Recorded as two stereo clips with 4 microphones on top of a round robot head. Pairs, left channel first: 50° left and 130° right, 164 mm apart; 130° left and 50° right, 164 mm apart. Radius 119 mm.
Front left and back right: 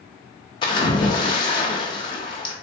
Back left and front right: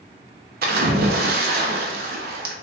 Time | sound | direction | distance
0.6 | a splash | 15° right | 0.6 m